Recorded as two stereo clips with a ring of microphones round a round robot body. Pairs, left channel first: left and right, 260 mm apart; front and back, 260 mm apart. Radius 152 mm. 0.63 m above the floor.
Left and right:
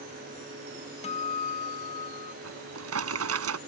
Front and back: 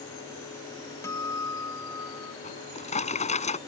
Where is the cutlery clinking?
No cutlery clinking in this recording.